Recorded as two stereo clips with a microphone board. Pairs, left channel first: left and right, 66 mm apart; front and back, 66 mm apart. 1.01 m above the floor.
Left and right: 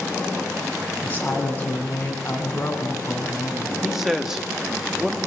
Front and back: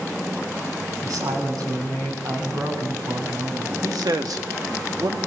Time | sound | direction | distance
1.0 | a woman speaking | 155° left | 8 m
3.8 | a man speaking | 175° right | 1.7 m